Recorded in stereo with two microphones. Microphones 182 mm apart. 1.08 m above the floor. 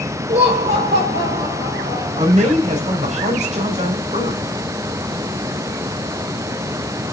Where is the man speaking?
40° right (ahead or behind), 3 m.